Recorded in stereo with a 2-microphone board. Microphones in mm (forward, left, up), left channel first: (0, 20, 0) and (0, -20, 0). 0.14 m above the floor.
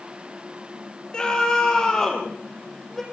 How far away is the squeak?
I don't hear a squeak.